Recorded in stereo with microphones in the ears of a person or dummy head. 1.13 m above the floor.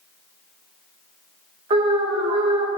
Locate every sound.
1.7 s an alarm: 25° right (ahead or behind), 1.7 m